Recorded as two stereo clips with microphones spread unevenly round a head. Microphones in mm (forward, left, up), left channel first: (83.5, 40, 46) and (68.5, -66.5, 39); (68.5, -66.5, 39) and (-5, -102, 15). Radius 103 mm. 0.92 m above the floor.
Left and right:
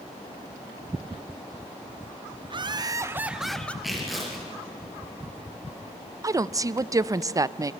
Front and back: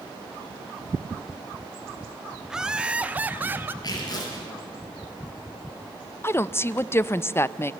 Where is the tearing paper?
10° right, 7 m.